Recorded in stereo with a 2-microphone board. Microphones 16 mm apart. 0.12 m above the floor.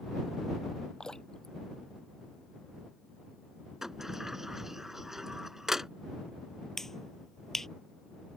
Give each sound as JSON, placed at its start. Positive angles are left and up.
{"t": 1.0, "sound": "dripping", "side_deg": 60}
{"t": 3.8, "sound": "a sliding door", "side_deg": -25}
{"t": 6.8, "sound": "a finger snap", "side_deg": 35}